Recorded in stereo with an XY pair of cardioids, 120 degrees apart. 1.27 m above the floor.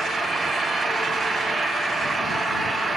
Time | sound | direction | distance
0.0 | an engine running | 30° right | ?